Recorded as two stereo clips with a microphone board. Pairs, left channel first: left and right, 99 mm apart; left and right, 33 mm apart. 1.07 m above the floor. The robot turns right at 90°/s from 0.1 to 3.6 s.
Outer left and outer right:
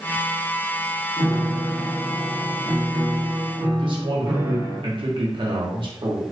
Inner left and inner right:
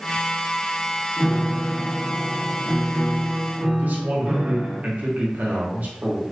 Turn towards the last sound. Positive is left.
turn(degrees=-55)  # may be behind; listen again after turning